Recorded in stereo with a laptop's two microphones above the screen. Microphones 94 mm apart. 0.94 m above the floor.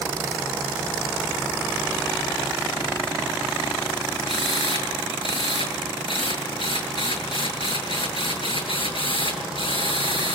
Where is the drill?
65° left (ahead or behind), 7.5 m.